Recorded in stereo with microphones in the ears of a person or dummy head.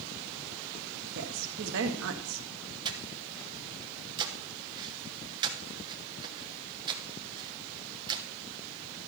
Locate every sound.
1.1 s a woman speaking: 75° right (ahead or behind), 1.5 m
2.9 s breathing: 20° right (ahead or behind), 1.2 m